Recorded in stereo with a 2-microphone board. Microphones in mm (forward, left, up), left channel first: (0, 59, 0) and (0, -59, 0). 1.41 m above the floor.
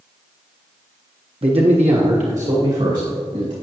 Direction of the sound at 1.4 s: 50° right (ahead or behind).